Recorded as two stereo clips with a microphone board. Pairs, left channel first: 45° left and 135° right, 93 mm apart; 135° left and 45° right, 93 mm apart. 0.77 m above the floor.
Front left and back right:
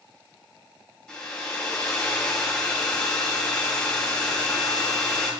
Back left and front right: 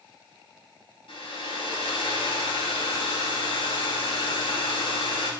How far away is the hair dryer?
About 4 m.